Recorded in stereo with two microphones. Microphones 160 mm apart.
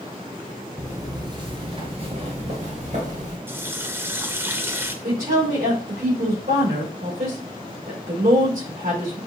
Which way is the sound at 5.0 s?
70° right (ahead or behind).